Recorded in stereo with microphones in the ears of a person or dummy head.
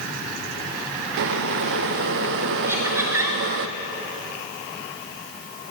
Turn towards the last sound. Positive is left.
turn(degrees=-15)  # may be behind; listen again after turning